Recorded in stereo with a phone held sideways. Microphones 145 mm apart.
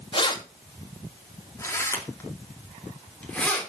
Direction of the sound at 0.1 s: 35° left (ahead or behind).